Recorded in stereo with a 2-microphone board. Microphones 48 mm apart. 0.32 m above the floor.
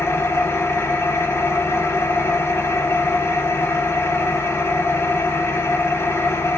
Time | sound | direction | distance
0.0 | an engine running | 60° left (ahead or behind) | 0.7 m